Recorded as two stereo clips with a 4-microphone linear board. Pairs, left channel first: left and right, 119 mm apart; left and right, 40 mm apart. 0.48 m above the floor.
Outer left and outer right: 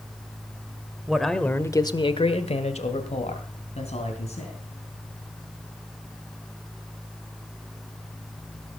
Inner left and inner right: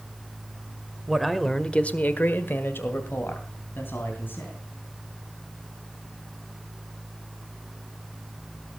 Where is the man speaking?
5° right (ahead or behind), 1.6 m; by 4.6 s 60° left (ahead or behind), 4 m.